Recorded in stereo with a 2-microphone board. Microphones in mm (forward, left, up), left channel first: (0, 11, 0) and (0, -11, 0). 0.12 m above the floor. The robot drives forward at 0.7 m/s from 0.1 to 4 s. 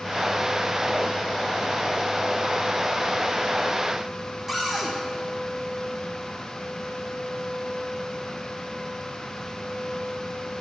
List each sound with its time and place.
4.5 s a cupboard door: centre (ahead or behind), 3 m